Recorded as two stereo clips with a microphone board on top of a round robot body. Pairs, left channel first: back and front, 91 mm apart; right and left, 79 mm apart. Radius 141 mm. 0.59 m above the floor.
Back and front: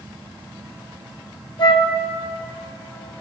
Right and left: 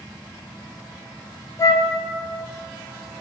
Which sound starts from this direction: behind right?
A flute, at 1.6 s.